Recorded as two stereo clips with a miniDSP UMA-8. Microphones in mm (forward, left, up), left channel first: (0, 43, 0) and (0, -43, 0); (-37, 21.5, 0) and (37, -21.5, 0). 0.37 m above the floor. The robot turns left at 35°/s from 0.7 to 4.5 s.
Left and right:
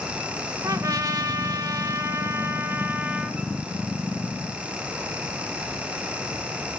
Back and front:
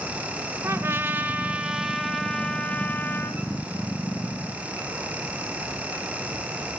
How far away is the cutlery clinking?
I don't hear cutlery clinking.